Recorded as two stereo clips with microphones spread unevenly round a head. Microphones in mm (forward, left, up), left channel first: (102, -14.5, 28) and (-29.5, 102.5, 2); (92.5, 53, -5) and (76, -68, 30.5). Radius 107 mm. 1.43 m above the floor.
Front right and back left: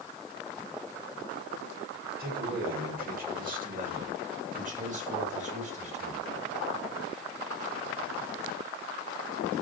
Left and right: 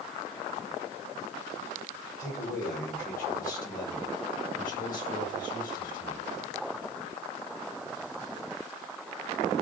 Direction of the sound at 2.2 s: 105° left.